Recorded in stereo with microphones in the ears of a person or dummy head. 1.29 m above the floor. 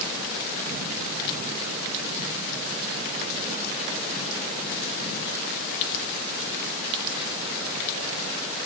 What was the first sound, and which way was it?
Only background noise.